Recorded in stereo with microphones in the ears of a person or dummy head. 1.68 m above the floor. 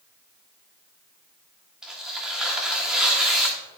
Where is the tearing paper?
5° right (ahead or behind), 1.6 m.